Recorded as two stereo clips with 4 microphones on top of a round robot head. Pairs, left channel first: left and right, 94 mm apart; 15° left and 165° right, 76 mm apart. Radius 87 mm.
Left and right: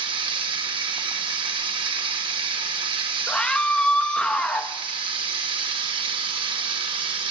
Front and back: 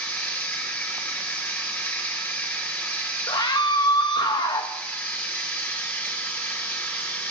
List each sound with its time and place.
0.0 s running water: 60° right, 1.4 m
3.3 s a scream: 10° left, 0.9 m